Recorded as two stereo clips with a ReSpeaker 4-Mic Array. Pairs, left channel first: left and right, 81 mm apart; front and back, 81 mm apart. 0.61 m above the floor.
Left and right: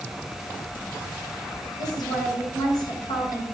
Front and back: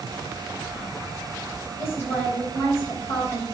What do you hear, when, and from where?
1.8 s a woman speaking: 60° left, 3.5 m